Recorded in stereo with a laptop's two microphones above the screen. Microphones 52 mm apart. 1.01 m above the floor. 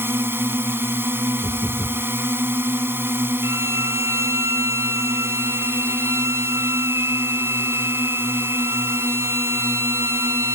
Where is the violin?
70° right (ahead or behind).